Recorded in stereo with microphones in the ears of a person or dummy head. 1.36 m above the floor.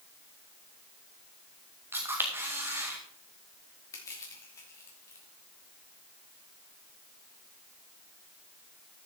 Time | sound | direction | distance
1.9 | a camera shutter | 15° right (ahead or behind) | 1.9 m
3.9 | crushing | 20° left (ahead or behind) | 3 m